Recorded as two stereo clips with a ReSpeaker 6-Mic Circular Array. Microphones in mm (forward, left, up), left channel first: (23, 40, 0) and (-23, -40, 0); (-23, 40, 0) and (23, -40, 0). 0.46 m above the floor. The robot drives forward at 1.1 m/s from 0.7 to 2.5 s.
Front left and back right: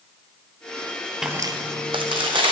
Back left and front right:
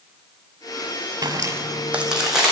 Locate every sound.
1.2 s footsteps: 35° right, 0.6 m; by 2.5 s 145° right, 2 m